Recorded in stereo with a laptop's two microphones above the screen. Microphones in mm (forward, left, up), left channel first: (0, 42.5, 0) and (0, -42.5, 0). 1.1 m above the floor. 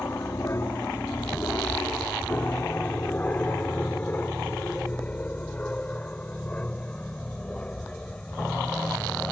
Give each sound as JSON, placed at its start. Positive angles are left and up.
{"t": 0.0, "sound": "an aircraft", "side_deg": 35}